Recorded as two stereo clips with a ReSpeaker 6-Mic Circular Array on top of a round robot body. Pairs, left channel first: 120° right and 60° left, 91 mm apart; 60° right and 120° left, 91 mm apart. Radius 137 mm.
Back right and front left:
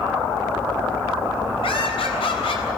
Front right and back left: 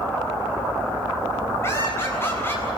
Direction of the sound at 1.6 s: 120° right.